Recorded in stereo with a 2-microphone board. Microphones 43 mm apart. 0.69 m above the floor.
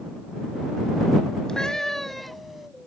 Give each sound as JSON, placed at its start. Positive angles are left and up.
{"t": 1.5, "sound": "a cat meowing", "side_deg": 15}